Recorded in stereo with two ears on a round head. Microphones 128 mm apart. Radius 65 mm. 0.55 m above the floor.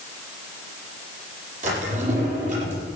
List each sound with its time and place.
1.6 s a drawer: 60° right (ahead or behind), 8 m